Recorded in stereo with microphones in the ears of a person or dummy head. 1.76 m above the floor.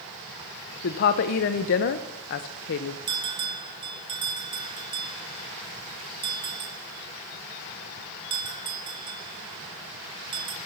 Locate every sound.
0.8 s a woman speaking: 35° left (ahead or behind), 0.8 m
3.1 s a bell: 25° right (ahead or behind), 0.9 m